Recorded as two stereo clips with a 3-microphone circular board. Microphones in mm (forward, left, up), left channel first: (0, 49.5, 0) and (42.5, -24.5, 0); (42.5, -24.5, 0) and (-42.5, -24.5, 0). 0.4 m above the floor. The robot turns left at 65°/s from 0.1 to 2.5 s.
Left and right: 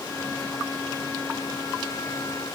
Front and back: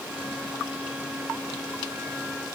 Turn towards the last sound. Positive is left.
No sound to turn to.